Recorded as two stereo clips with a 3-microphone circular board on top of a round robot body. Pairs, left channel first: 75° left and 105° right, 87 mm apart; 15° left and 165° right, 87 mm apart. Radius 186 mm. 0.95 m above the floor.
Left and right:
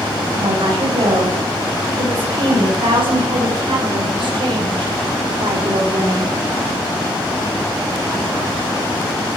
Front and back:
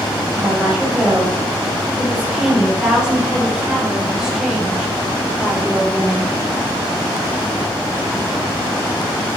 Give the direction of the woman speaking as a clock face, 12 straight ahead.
3 o'clock.